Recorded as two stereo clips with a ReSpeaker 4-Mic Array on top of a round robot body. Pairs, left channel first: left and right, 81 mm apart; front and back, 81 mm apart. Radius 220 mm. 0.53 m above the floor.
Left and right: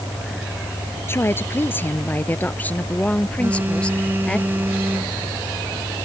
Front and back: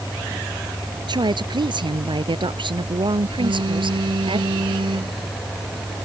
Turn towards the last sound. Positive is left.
turn(degrees=-160)